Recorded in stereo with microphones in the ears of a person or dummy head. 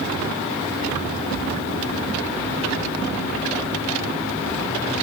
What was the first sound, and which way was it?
Only background noise.